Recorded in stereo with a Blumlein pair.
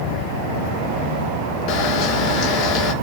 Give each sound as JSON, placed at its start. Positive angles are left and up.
{"t": 1.7, "sound": "a camera shutter", "azimuth_deg": 40, "distance_m": 0.8}